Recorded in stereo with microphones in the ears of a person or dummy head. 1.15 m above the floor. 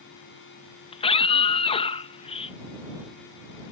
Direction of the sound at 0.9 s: 30° left (ahead or behind).